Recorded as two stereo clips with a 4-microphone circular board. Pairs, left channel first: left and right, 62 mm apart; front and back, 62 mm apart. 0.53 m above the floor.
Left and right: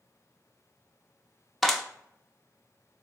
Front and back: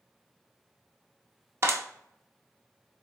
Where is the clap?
175° left, 0.6 m.